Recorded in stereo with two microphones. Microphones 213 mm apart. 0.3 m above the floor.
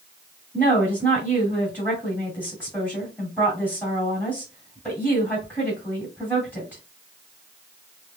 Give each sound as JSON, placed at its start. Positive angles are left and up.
{"t": 0.5, "sound": "a woman speaking", "side_deg": 10, "distance_m": 2.0}